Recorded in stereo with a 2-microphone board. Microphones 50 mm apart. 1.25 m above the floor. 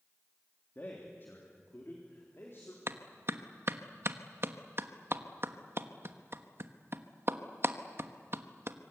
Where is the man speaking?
40° left (ahead or behind), 3 m; by 2.8 s 50° left (ahead or behind), 4 m.